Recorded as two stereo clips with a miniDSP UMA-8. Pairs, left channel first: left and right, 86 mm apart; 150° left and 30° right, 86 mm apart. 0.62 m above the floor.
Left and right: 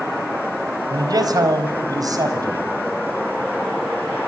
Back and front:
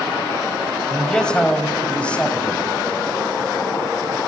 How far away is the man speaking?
About 3.5 m.